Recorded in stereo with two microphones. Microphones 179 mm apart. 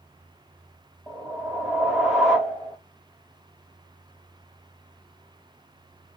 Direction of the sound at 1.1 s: Centre (ahead or behind).